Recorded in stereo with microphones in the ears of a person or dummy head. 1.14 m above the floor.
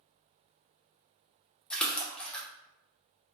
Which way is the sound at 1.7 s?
5° left (ahead or behind).